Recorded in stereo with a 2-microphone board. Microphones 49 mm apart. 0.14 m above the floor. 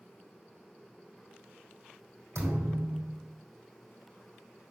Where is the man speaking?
No man speaking in this recording.